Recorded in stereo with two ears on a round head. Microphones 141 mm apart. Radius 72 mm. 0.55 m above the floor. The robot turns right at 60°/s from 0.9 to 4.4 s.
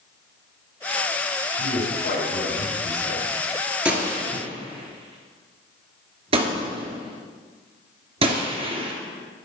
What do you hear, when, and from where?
1.6 s a man speaking: 75° left, 3 m; by 3.3 s 175° left, 3 m
3.9 s a gunshot: 5° right (ahead or behind), 1.5 m; by 8.9 s 40° right (ahead or behind), 1.5 m